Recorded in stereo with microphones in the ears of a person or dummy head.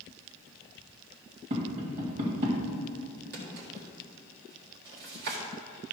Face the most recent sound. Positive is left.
turn(degrees=-60)  # may be behind; listen again after turning